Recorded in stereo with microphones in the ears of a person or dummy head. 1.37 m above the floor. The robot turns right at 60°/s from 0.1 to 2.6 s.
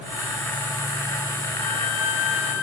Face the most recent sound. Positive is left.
turn(degrees=100)